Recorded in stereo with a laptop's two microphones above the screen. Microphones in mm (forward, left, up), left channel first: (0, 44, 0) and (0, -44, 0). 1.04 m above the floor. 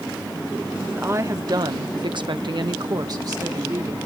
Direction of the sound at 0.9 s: 25° right (ahead or behind).